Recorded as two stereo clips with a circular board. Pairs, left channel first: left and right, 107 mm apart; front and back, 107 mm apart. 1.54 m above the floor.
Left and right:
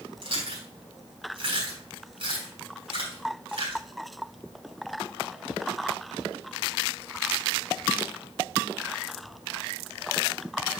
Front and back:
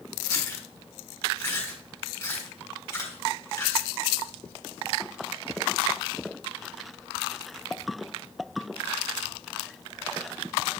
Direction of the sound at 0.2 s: 65° right.